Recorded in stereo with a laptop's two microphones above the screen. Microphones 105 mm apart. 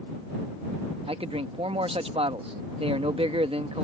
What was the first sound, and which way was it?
A man speaking, 60° right (ahead or behind).